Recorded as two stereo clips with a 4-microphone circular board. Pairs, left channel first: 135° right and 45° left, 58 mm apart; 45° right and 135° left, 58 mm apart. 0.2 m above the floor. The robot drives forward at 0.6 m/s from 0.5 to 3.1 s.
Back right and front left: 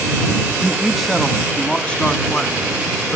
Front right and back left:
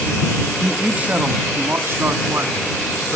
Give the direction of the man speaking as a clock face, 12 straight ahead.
8 o'clock.